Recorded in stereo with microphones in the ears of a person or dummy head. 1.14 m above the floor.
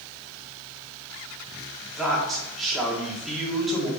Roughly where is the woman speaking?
Centre.